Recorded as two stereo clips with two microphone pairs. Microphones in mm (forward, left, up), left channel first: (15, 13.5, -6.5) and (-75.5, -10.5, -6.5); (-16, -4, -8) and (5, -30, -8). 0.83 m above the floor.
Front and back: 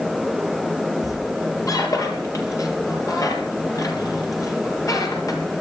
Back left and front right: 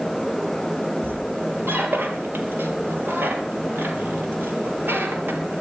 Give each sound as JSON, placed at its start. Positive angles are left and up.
{"t": 1.0, "sound": "a squeak", "azimuth_deg": -35, "distance_m": 3.0}